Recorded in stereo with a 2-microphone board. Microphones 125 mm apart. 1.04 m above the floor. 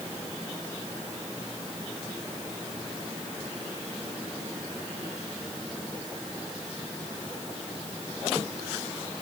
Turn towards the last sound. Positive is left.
No sound to turn to.